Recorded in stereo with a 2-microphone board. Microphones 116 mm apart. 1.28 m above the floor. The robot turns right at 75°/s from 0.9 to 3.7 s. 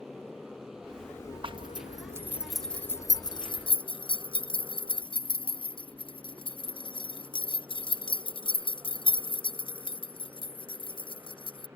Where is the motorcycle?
5° right (ahead or behind); by 11.8 s 20° right (ahead or behind).